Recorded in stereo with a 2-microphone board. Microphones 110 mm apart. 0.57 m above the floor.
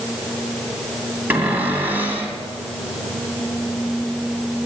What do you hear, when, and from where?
1.3 s a cupboard door: 20° right (ahead or behind), 2.5 m